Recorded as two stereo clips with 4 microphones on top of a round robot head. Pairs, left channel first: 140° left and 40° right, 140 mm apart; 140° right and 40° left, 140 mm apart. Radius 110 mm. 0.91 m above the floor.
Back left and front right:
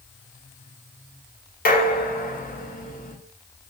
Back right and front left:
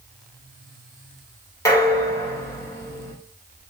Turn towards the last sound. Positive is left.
turn(degrees=155)